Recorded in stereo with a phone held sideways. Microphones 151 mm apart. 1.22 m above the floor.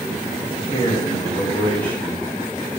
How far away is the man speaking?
About 2 m.